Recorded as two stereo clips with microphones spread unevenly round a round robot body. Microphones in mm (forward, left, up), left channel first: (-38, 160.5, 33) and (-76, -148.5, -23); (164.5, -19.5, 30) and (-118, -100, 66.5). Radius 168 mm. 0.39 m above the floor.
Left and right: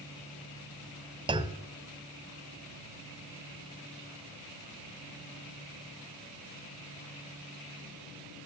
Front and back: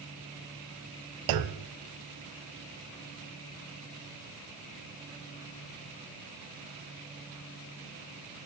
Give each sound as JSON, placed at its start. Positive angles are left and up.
{"t": 1.3, "sound": "a clunk", "azimuth_deg": -170, "distance_m": 0.8}